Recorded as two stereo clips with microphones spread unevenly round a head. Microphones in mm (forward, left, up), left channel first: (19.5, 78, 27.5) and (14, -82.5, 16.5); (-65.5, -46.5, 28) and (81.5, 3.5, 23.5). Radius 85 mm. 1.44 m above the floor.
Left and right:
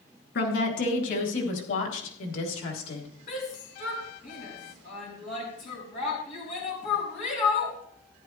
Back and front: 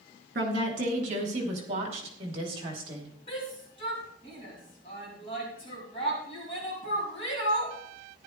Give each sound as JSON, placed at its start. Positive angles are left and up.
{"t": 0.3, "sound": "a woman speaking", "azimuth_deg": 60, "distance_m": 3.5}
{"t": 3.3, "sound": "a shout", "azimuth_deg": 140, "distance_m": 4.5}